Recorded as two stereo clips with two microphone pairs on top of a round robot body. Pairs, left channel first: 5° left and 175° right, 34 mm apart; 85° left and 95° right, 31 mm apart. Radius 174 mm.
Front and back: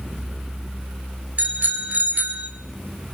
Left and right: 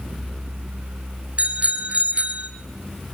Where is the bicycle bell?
140° right, 3.5 m.